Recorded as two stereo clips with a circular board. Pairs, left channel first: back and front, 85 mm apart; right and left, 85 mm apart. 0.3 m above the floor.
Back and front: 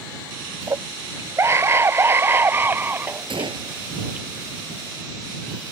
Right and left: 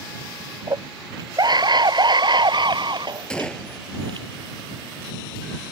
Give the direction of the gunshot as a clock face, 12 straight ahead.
12 o'clock.